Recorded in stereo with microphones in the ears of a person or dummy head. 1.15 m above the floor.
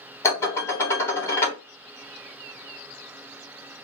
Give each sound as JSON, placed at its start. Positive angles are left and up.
{"t": 0.2, "sound": "dishes clattering", "side_deg": 15, "distance_m": 1.0}